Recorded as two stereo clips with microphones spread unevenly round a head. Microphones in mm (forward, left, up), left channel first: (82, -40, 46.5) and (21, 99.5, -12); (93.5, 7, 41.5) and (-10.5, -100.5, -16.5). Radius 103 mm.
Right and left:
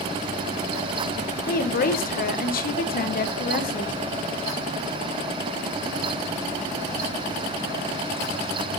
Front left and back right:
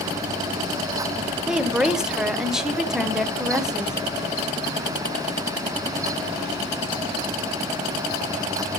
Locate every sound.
1.5 s a woman speaking: 45° right, 1.0 m